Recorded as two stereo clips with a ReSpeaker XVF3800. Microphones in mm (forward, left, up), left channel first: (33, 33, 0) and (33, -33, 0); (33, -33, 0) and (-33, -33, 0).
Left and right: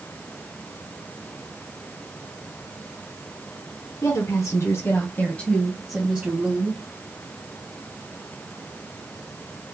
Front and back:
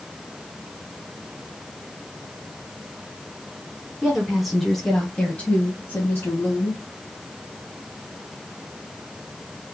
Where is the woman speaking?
95° left, 1.8 m; by 6.8 s 45° right, 1.6 m.